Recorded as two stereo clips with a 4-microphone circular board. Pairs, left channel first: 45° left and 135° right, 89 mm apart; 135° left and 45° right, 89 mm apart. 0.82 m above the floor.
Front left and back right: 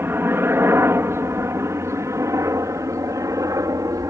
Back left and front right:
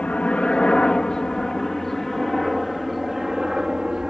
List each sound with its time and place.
0.0 s a helicopter: 165° right; by 4.1 s 125° right